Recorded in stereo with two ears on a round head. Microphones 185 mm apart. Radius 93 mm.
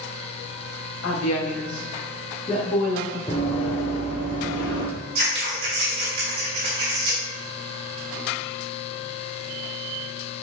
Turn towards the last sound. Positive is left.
turn(degrees=-50)  # may be behind; listen again after turning